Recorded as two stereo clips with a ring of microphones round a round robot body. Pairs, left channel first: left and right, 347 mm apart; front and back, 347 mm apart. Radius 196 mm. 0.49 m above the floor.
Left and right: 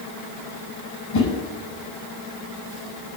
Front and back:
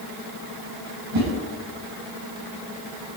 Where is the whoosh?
130° left, 6.5 m.